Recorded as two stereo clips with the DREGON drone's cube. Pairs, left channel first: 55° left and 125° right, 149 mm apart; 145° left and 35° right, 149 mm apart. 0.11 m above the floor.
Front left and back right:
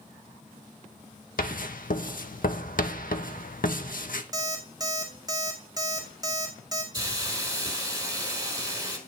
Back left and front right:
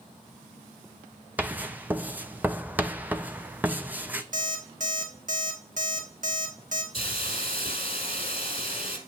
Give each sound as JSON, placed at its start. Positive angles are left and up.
{"t": 1.4, "sound": "writing", "azimuth_deg": 45, "distance_m": 0.5}
{"t": 4.3, "sound": "an alarm clock", "azimuth_deg": -60, "distance_m": 1.5}
{"t": 6.9, "sound": "a hiss", "azimuth_deg": 180, "distance_m": 1.6}